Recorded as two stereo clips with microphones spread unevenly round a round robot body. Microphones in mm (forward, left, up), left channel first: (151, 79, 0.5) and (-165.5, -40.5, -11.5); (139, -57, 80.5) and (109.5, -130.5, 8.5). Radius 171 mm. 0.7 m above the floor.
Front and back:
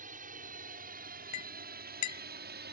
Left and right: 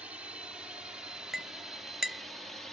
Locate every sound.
0.0 s a drone: 95° right; by 2.7 s 120° right
1.3 s a clink: 25° right